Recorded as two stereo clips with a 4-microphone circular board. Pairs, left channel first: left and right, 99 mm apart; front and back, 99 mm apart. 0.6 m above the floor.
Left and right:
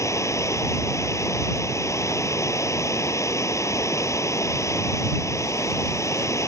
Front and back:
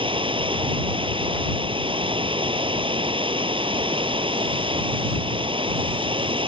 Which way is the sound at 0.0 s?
150° left.